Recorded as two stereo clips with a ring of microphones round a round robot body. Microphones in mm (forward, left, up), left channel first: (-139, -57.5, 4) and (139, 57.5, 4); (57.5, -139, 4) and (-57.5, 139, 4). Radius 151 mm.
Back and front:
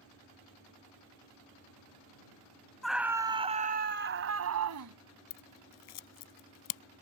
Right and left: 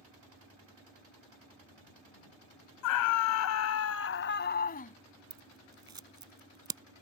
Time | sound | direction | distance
2.8 | a scream | 70° right | ?
5.3 | scissors | 170° right | ?